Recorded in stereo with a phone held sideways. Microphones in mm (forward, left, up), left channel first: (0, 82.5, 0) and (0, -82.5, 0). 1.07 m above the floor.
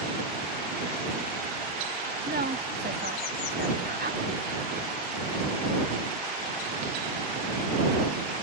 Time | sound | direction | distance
2.3 | a woman speaking | 70° right (ahead or behind) | ?